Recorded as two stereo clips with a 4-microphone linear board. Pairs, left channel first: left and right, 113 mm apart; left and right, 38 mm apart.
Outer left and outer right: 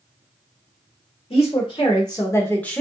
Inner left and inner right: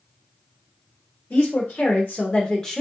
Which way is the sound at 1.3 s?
55° left (ahead or behind).